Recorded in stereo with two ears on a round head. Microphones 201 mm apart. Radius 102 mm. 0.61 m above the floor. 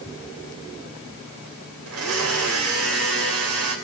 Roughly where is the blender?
Right.